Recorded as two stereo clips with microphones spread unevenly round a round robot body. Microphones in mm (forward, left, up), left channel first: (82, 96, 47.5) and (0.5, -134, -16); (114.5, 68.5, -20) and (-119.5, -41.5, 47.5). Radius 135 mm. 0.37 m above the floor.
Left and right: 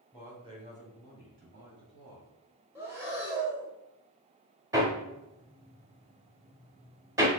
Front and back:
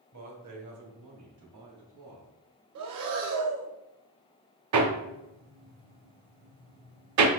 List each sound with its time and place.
0.1 s a man speaking: 175° right, 1.6 m; by 2.3 s 115° right, 2.5 m
2.8 s breathing: 175° left, 0.8 m
4.7 s hammering: straight behind, 0.8 m